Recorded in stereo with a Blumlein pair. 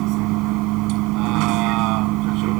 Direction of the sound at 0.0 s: 40° right.